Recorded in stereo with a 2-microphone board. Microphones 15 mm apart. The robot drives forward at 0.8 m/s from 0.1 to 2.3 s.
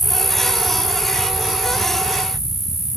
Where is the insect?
10° left (ahead or behind), 1.0 m; by 3.0 s 5° left (ahead or behind), 2.5 m.